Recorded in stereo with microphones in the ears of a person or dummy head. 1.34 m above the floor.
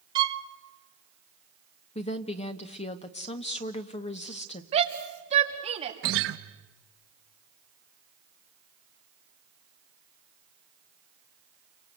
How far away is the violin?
About 1.0 m.